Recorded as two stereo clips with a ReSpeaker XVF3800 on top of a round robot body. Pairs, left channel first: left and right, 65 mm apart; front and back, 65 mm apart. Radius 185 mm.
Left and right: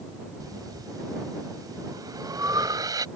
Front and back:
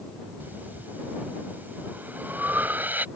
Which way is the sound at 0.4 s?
115° right.